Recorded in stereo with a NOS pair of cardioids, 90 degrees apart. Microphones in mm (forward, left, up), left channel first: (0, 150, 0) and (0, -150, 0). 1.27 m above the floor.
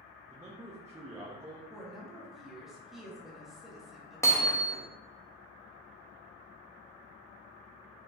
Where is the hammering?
10° left, 0.8 m.